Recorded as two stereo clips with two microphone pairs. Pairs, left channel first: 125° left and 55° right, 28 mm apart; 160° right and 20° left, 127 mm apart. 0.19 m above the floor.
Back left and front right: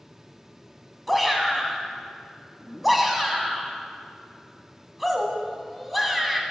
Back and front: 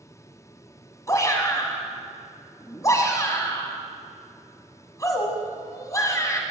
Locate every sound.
1.1 s a shout: 135° right, 1.6 m